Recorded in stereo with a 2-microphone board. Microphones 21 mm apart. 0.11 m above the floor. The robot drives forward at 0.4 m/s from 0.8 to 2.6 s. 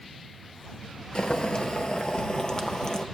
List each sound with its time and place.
1.1 s boiling: 55° left (ahead or behind), 0.6 m; by 3.0 s 40° left (ahead or behind), 0.8 m